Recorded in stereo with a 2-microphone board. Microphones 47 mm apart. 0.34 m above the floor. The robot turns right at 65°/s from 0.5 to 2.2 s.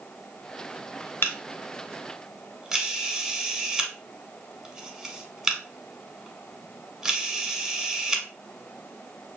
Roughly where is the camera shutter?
Left.